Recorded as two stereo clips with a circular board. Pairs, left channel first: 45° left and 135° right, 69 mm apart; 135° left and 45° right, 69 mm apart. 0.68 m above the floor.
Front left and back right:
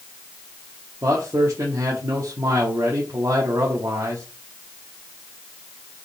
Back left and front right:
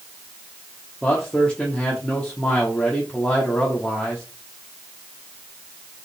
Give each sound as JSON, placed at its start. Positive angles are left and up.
{"t": 1.0, "sound": "a man speaking", "azimuth_deg": -155, "distance_m": 1.1}